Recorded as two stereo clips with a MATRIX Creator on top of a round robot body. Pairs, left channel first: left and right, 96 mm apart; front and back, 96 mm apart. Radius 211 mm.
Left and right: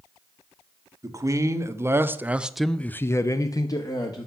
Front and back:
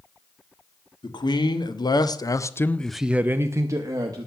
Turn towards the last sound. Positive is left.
turn(degrees=130)